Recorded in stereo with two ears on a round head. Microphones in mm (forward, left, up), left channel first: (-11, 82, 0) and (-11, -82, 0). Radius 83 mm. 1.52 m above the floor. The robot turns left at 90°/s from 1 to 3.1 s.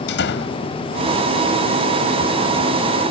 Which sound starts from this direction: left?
A door slam, at 0.1 s.